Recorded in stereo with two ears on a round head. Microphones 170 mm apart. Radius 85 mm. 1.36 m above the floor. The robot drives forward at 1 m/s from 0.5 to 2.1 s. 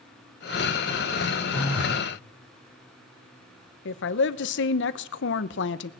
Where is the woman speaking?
60° left (ahead or behind), 0.9 m.